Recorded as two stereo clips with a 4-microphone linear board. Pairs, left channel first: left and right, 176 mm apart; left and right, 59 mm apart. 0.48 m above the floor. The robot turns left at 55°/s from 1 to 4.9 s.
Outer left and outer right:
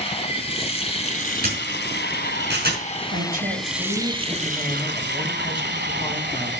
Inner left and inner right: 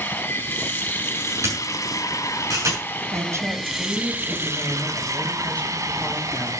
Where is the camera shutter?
50° right (ahead or behind), 7 m.